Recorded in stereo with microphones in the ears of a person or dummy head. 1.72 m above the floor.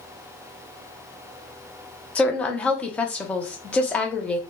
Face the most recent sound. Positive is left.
turn(degrees=10)  # may be behind; listen again after turning